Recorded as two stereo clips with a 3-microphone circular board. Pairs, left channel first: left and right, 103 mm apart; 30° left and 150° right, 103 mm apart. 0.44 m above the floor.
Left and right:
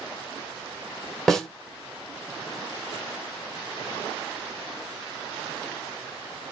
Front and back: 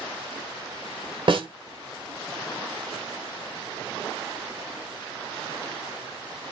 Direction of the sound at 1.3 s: 175° left.